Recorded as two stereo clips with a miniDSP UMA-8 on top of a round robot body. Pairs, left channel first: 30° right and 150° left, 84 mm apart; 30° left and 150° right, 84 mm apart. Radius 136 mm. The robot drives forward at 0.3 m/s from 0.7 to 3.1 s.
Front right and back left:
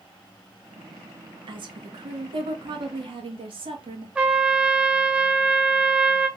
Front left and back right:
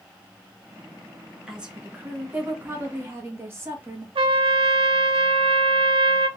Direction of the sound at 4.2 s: 135° right.